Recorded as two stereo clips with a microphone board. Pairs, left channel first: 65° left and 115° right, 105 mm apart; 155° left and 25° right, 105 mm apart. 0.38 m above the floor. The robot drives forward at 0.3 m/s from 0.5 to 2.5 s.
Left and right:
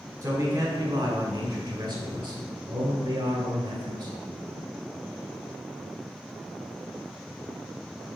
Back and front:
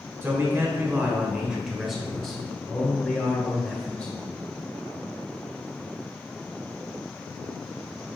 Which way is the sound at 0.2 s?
80° right.